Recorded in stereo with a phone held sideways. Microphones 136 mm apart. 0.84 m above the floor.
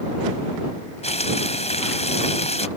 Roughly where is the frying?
Left.